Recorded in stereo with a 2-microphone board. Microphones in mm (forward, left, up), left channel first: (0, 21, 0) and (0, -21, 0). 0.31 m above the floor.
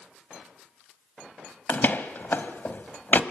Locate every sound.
1.7 s a door slam: 50° left (ahead or behind), 1.3 m